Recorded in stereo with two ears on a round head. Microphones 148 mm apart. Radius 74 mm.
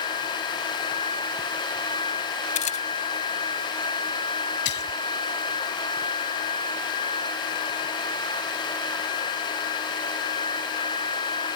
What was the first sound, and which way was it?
A camera shutter, 45° left (ahead or behind).